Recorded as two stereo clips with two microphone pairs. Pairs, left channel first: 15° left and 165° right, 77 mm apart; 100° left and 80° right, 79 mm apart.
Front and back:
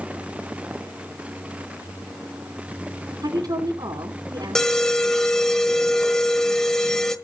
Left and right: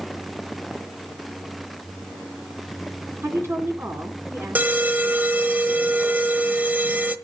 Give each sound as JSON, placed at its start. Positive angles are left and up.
{"t": 3.2, "sound": "a woman speaking", "azimuth_deg": -140, "distance_m": 2.5}
{"t": 4.5, "sound": "an alarm", "azimuth_deg": -55, "distance_m": 1.1}